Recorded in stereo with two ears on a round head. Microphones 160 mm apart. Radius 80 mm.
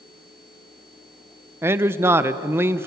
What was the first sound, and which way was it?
A man speaking, 15° right (ahead or behind).